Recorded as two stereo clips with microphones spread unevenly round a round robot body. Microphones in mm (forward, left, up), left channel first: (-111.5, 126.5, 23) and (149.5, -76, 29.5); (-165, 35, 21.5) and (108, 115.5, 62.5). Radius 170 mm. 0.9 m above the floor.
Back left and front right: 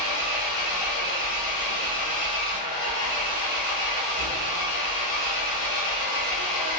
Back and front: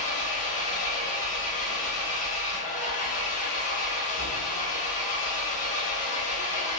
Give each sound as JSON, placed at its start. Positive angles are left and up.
{"t": 0.0, "sound": "an engine running", "azimuth_deg": 130, "distance_m": 1.0}